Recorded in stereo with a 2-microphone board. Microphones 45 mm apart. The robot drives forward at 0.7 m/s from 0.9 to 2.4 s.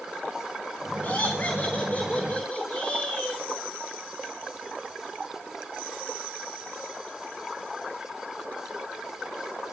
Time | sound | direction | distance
1.0 | laughter | 40° left (ahead or behind) | 3.5 m